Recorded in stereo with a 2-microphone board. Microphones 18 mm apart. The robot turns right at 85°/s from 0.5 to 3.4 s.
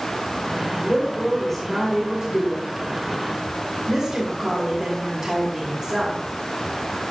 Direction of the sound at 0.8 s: 95° left.